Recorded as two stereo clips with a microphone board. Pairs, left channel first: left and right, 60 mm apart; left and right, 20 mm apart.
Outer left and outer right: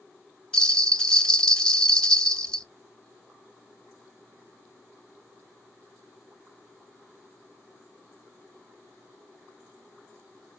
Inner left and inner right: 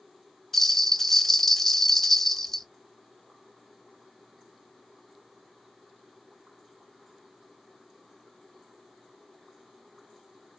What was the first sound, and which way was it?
A bell, 15° left (ahead or behind).